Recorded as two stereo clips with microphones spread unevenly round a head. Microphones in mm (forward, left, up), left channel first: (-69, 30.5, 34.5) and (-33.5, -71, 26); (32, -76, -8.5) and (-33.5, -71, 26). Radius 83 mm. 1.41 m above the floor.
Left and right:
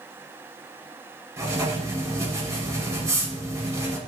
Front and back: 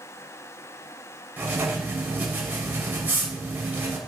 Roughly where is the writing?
Behind right.